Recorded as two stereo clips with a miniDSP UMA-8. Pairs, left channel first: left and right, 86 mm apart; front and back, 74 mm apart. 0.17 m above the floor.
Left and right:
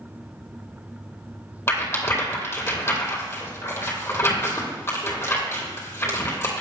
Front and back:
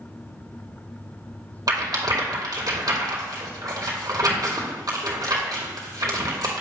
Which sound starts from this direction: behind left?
A rattle, at 1.7 s.